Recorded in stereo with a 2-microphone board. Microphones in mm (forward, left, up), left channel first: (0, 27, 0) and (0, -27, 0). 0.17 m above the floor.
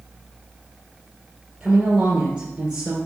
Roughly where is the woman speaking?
Centre.